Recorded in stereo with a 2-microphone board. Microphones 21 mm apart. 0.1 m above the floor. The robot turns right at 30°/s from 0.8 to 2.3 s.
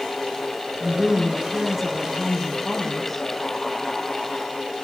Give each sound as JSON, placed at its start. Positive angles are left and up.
{"t": 0.8, "sound": "a woman speaking", "azimuth_deg": -25, "distance_m": 5.0}